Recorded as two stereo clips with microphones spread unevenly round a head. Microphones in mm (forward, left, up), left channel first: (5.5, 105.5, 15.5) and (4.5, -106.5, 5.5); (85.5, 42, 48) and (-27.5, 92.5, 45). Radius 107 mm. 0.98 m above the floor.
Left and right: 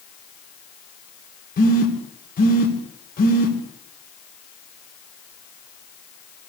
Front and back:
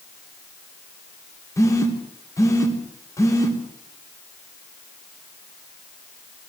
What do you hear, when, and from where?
1.6 s a phone buzzing: 40° left, 3.5 m